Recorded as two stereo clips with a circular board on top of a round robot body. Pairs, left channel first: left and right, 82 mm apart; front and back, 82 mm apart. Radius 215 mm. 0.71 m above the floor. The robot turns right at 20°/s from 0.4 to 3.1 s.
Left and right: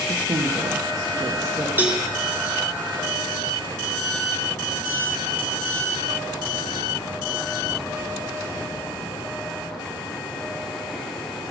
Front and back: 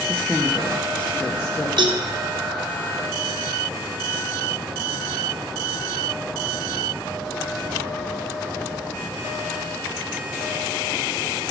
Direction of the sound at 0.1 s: 75° right.